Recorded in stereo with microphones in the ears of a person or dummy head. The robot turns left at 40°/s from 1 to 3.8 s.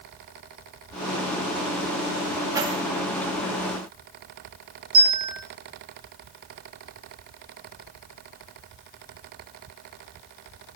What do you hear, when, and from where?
2.5 s keys jangling: 20° right (ahead or behind), 2 m; by 2.8 s 30° right (ahead or behind), 2 m
4.9 s a bell: 30° right (ahead or behind), 4.5 m